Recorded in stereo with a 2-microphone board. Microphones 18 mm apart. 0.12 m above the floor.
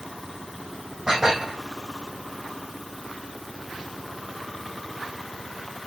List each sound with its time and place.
1.1 s dishes clattering: 20° right (ahead or behind), 4 m